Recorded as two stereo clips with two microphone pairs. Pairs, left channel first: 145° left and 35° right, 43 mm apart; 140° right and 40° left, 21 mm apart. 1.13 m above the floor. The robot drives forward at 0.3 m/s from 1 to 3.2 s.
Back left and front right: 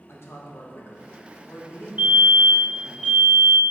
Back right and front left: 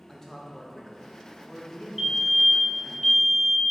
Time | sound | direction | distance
0.1 | a man speaking | 145° left | 1.1 m
2.0 | a fire alarm | 50° right | 1.1 m